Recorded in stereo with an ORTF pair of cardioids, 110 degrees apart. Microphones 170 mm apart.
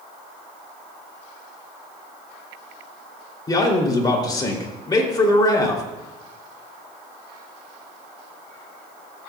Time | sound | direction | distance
3.5 | a man speaking | 25° left | 3 m